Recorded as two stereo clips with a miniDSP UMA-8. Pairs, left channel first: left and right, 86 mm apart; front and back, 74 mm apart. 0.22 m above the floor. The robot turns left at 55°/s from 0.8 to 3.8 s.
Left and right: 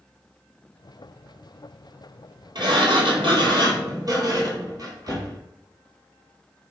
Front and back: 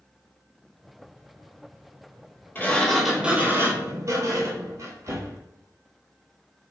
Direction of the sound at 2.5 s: 65° right.